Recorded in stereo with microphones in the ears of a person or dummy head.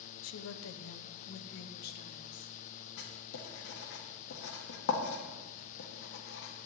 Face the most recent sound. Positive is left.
turn(degrees=65)  # may be behind; listen again after turning